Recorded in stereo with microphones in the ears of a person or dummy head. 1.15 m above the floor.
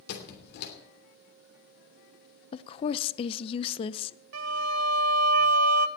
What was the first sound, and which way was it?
A squeak, 60° left (ahead or behind).